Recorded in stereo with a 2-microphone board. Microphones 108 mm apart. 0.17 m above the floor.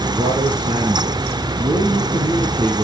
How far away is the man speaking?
About 3 m.